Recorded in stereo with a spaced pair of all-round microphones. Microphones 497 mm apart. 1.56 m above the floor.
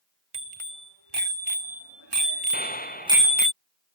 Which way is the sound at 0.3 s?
65° right (ahead or behind).